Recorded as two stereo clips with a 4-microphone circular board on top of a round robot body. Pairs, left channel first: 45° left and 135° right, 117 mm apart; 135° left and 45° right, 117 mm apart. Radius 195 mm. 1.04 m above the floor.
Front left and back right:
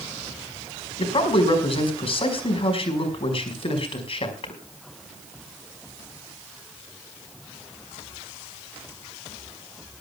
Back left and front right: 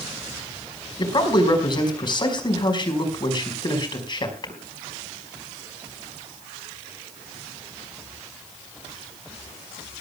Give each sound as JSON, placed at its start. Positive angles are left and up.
{"t": 1.0, "sound": "a man speaking", "azimuth_deg": 85, "distance_m": 5.0}